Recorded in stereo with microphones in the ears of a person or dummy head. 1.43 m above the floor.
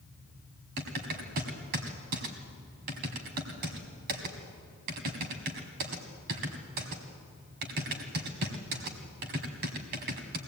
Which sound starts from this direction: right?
Typing on a keyboard, at 0.8 s.